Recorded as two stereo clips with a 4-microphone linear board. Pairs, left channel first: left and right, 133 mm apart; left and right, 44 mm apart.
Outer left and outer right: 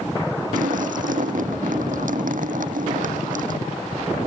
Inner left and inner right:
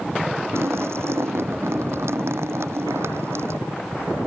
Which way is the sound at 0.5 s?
90° right.